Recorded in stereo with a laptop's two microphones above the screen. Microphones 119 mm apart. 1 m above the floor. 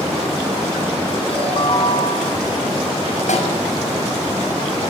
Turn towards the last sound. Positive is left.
turn(degrees=85)